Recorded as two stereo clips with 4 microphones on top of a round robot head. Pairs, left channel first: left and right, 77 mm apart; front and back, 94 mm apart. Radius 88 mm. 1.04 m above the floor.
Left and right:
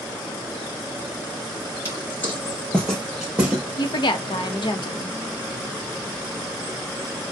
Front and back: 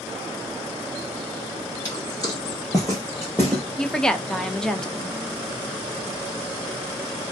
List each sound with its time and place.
1.9 s footsteps: 45° left, 1.3 m; by 3.6 s 65° right, 1.1 m
3.8 s a woman speaking: 85° left, 0.8 m